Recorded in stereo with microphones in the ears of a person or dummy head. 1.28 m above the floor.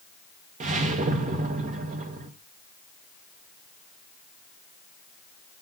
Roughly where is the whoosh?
Right.